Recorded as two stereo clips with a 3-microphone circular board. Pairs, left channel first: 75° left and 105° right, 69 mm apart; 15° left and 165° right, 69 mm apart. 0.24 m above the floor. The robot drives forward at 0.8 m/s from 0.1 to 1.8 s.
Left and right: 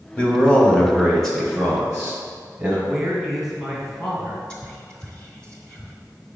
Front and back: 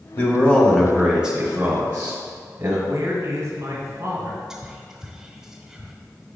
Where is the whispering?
125° left, 1.0 m.